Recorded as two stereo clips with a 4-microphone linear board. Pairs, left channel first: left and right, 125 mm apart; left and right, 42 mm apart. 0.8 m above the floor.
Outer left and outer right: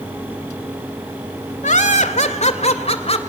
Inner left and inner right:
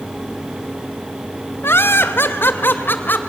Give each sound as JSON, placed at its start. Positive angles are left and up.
{"t": 1.6, "sound": "laughter", "side_deg": 80, "distance_m": 2.0}